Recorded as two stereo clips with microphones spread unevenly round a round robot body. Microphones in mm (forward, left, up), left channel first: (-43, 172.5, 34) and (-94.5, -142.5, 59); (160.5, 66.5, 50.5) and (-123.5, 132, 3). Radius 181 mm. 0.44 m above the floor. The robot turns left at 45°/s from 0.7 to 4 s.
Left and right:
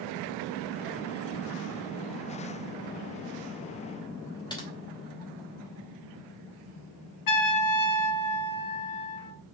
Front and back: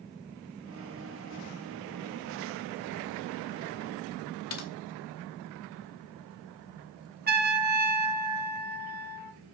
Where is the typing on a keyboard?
10° left, 2.5 m.